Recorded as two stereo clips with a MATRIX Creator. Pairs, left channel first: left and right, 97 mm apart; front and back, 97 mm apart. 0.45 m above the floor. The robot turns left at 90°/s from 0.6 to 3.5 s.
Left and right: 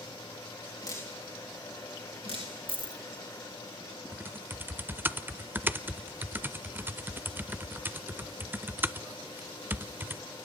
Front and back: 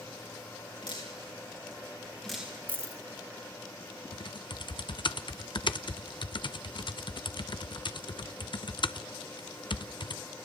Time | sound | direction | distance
0.8 | dripping | 45° left | 4.5 m
2.7 | a dropped coin | 105° right | 0.6 m
4.1 | typing on a keyboard | 25° right | 0.6 m